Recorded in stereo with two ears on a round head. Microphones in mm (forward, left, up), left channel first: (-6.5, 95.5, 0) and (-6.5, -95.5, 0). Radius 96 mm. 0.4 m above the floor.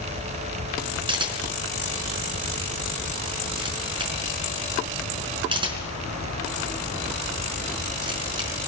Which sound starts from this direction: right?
A camera shutter, at 1.1 s.